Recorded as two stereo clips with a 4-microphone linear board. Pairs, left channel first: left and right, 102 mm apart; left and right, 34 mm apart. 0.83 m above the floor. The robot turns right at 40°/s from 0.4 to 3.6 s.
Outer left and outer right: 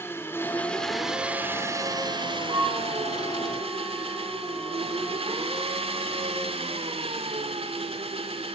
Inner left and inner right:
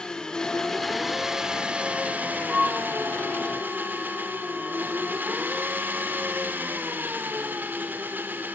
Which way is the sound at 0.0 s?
160° left.